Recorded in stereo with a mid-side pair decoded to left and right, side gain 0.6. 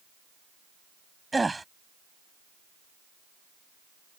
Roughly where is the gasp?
Ahead.